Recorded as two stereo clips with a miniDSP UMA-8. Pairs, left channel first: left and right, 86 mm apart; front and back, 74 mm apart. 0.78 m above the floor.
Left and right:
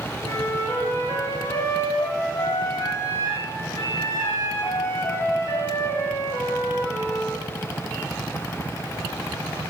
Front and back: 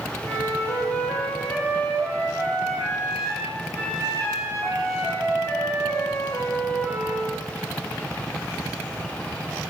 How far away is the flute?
About 2 m.